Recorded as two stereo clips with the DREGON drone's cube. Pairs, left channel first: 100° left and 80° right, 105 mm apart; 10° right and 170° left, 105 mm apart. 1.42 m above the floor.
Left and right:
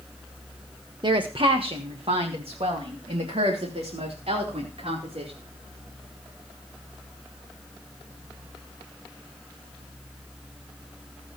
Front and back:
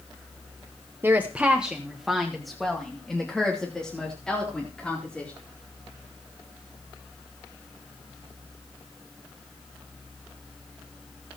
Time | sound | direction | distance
1.0 | a woman speaking | 120° right | 1.0 m